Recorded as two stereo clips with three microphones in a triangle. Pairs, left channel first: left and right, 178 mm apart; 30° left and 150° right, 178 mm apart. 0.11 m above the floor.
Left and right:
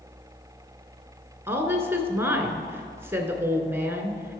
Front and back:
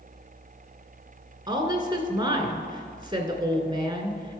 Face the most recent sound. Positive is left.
turn(degrees=-145)